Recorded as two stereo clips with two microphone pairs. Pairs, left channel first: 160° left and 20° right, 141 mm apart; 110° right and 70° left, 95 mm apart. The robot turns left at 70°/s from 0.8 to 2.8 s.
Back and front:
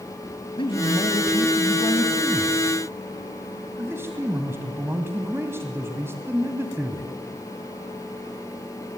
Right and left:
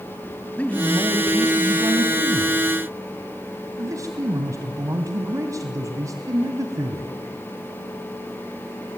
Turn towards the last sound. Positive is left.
turn(degrees=45)